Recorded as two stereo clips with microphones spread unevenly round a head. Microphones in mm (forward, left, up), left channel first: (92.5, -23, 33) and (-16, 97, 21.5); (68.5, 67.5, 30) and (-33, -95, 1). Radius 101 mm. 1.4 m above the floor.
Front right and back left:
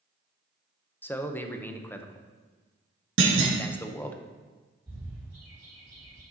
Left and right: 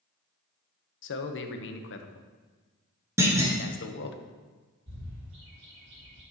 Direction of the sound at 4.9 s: 155° right.